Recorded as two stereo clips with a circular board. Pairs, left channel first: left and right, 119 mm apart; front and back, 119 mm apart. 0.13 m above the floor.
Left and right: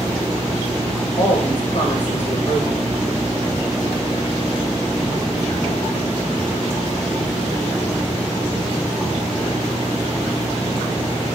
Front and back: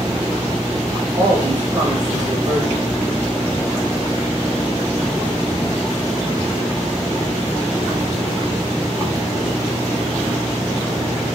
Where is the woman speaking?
120° left, 4 m.